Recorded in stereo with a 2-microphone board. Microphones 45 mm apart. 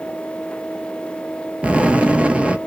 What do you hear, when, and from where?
1.6 s an explosion: 25° right (ahead or behind), 0.6 m